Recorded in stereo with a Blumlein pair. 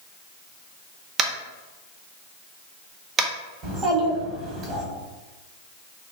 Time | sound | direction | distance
1.2 | tapping | 25° right | 0.5 m
3.6 | a child speaking | 25° right | 1.4 m